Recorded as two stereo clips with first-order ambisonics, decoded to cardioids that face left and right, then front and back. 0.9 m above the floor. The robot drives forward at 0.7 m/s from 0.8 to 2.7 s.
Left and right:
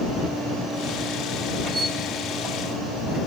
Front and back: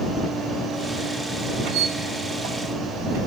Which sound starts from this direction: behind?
A squeak, at 1.6 s.